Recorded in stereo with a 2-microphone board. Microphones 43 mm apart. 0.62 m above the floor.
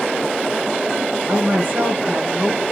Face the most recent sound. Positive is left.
turn(degrees=-25)  # may be behind; listen again after turning